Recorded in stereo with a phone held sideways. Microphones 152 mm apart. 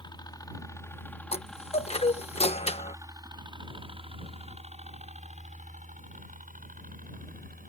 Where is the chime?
45° left (ahead or behind).